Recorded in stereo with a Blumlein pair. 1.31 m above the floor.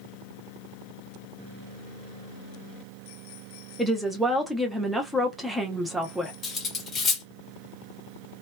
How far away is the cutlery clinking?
About 1.1 m.